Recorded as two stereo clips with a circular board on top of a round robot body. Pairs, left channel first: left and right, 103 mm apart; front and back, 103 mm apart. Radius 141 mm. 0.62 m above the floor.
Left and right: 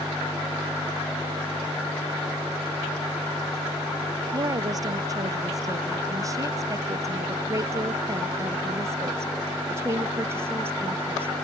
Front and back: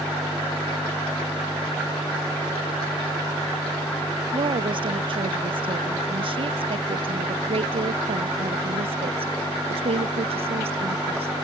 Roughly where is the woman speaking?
Behind right.